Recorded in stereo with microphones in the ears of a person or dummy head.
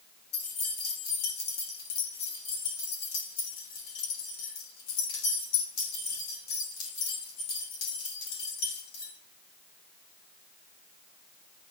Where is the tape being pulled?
I don't hear tape being pulled.